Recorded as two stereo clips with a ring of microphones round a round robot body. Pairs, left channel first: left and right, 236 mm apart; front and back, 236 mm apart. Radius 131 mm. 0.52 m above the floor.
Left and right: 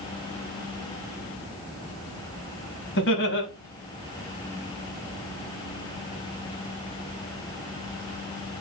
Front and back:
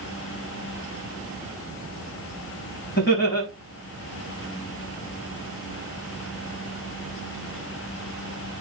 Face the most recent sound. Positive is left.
turn(degrees=50)